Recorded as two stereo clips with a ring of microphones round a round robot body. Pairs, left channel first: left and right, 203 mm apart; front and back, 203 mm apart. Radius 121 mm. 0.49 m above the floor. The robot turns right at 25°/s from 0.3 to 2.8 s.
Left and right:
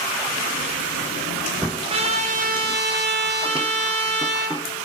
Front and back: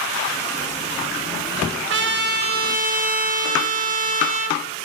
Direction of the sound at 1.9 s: 155° right.